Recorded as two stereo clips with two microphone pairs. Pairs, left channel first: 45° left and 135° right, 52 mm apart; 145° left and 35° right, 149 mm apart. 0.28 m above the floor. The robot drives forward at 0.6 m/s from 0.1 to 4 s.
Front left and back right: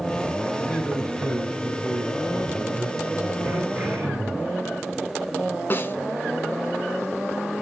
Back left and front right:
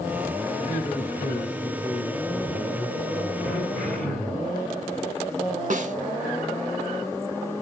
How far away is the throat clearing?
About 1.9 m.